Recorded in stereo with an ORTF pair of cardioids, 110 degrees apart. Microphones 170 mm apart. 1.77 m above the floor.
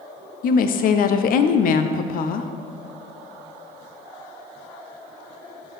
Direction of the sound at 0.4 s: 55° left.